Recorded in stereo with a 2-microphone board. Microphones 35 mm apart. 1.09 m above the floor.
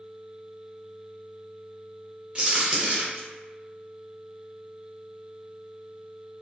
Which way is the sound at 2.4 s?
30° right (ahead or behind).